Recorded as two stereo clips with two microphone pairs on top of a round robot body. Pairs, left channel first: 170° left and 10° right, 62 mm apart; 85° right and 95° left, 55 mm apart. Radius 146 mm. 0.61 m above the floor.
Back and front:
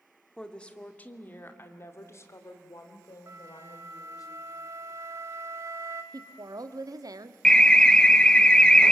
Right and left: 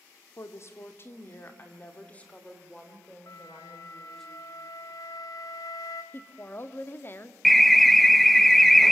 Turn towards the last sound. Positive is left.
turn(degrees=-170)